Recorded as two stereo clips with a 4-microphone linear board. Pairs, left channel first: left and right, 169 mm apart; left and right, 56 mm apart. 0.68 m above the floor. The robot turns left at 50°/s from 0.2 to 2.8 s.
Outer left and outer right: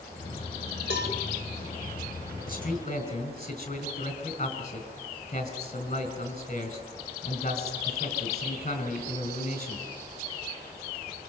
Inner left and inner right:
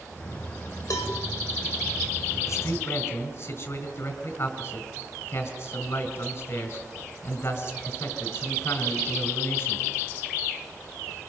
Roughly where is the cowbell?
Left.